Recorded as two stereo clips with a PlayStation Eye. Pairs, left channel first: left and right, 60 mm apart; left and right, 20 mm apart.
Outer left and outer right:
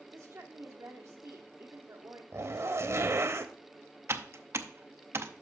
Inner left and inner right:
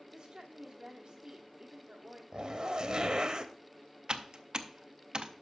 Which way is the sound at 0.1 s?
50° right (ahead or behind).